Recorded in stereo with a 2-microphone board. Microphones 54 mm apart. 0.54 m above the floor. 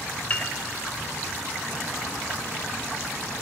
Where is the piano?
30° left (ahead or behind), 0.7 m.